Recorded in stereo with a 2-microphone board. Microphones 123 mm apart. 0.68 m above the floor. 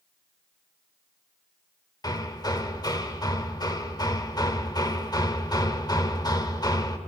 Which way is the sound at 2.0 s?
30° left (ahead or behind).